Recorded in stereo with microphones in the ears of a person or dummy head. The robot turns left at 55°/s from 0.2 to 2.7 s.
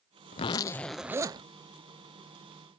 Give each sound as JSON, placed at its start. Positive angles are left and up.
{"t": 0.3, "sound": "a zipper", "azimuth_deg": 35}